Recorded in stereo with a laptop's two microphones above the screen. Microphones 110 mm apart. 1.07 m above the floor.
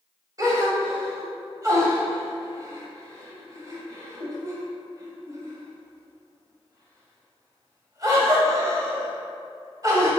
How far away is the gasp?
About 1.3 m.